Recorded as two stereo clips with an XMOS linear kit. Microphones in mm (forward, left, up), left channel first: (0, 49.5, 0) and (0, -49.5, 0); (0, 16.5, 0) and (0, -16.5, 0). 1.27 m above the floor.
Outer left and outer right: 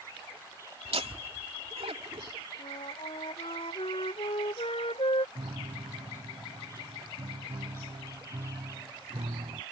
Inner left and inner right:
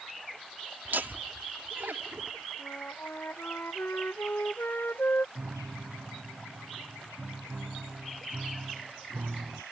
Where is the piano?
80° right.